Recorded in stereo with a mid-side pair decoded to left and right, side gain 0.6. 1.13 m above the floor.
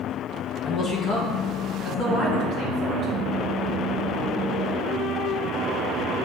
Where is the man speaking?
45° left, 0.9 m; by 3.1 s 55° left, 2.5 m.